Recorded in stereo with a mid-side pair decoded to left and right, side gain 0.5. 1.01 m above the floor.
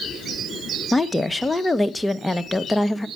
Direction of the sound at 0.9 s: 10° left.